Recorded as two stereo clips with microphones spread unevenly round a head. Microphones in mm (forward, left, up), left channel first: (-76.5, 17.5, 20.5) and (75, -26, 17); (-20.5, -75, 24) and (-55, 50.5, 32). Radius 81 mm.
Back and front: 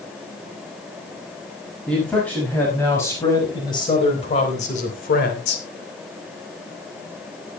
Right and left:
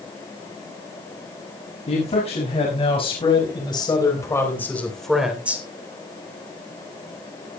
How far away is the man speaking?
About 6.5 m.